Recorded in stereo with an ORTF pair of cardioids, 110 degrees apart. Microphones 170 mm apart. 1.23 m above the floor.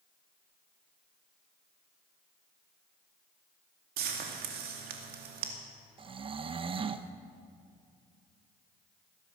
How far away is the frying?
About 2.5 m.